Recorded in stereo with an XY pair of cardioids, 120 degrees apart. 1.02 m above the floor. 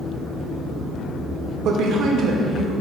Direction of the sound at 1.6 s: 65° right.